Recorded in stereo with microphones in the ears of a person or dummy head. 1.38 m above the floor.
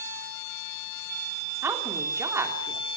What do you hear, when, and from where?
1.6 s a woman speaking: 15° right (ahead or behind), 3.5 m